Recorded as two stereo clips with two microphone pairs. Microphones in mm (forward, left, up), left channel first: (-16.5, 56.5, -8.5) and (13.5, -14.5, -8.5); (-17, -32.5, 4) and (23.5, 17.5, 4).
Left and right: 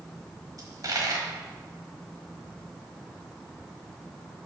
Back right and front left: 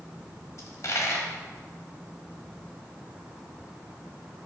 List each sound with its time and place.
0.6 s a dropped coin: 100° right, 1.2 m